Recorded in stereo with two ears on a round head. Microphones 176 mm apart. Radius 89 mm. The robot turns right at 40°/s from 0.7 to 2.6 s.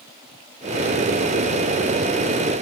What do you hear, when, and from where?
Only background noise.